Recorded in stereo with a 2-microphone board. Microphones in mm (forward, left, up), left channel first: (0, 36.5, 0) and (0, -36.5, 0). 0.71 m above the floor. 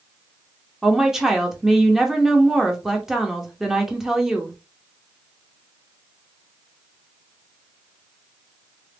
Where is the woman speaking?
5° right (ahead or behind), 1.0 m.